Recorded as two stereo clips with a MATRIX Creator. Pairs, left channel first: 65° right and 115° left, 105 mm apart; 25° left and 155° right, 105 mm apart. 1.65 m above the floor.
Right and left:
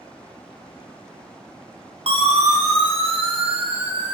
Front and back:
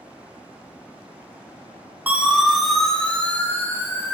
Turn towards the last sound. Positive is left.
turn(degrees=85)